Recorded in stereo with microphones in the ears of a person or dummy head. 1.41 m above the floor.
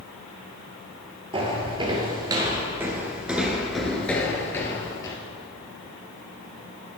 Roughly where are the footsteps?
Right.